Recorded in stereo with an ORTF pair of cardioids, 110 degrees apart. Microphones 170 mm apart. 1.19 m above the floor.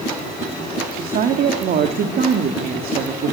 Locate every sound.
0.9 s a woman speaking: 65° right, 3 m